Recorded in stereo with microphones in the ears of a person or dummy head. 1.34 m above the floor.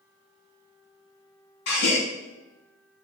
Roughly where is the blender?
No blender in this recording.